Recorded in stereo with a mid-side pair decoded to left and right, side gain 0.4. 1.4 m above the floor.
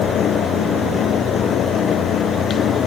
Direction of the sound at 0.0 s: 70° left.